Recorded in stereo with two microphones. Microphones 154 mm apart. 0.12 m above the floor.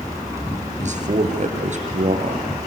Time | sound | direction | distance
0.8 | a man speaking | 50° right (ahead or behind) | 2.5 m